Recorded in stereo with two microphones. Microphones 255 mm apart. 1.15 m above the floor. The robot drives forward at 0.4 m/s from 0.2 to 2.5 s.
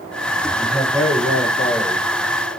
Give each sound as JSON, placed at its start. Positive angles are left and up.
{"t": 0.6, "sound": "a man speaking", "side_deg": 10, "distance_m": 4.0}